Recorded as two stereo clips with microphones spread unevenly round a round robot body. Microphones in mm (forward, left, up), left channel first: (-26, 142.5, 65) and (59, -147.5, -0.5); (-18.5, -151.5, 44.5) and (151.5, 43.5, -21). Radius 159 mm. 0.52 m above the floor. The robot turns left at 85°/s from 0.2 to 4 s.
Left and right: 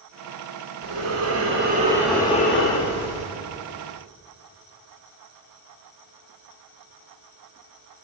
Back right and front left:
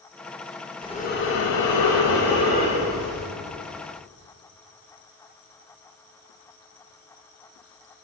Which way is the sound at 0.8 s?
50° right.